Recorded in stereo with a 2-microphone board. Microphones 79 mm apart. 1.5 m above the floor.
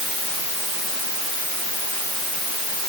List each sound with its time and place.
Only background noise.